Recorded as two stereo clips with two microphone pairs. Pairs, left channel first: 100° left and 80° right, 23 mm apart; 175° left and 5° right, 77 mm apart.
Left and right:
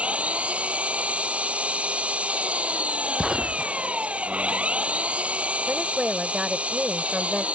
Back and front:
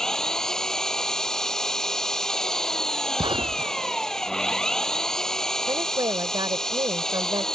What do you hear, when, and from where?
0.0 s an engine running: 105° right
3.2 s a gunshot: 15° right
5.7 s a woman speaking: 25° right